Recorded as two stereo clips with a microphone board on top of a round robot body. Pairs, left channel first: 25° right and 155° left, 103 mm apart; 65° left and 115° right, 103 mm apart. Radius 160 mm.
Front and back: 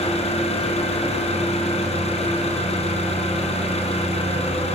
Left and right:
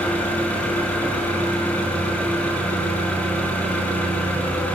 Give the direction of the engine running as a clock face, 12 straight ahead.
12 o'clock.